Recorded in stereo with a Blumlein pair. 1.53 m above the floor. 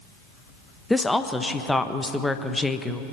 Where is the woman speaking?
5° left, 1.2 m.